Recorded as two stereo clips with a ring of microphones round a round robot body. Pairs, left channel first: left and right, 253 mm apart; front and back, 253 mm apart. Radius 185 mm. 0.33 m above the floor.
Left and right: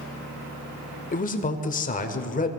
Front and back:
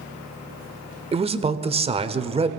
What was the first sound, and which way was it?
A man speaking, 125° left.